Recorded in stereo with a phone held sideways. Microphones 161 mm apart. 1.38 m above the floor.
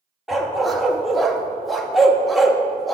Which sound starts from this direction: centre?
A dog barking, at 0.3 s.